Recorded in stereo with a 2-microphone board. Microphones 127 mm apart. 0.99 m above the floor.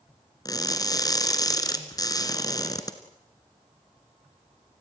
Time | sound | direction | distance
0.5 | crushing | 30° left (ahead or behind) | 1.9 m